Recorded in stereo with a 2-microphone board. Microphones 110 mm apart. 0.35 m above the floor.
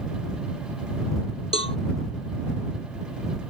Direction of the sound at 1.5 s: 60° left (ahead or behind).